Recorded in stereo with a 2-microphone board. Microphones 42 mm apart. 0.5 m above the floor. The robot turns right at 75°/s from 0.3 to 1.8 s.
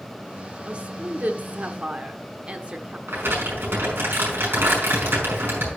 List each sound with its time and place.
0.7 s a woman speaking: 30° right (ahead or behind), 1.2 m
3.1 s crumpling: 65° right (ahead or behind), 5.5 m